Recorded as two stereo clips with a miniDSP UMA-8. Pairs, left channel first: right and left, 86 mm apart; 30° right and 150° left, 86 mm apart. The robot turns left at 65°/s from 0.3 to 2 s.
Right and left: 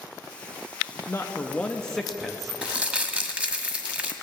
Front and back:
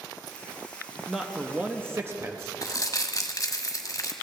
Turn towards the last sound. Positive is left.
turn(degrees=15)